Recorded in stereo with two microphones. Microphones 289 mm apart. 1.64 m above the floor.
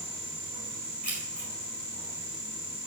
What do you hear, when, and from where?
1.0 s keys jangling: 80° right, 4.5 m